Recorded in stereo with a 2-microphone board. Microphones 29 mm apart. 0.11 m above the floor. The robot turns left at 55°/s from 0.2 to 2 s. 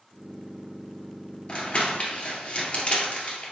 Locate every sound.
1.5 s crumpling: 30° left (ahead or behind), 2 m; by 3.5 s 45° left (ahead or behind), 2 m